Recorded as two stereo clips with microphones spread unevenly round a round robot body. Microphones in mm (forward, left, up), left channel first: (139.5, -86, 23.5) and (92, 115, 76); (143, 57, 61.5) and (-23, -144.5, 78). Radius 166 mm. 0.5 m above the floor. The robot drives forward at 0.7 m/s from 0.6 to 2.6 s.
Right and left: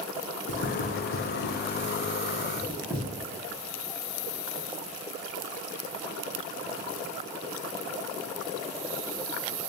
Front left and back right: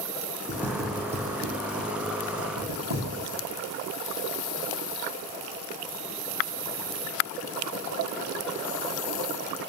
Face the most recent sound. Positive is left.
turn(degrees=-160)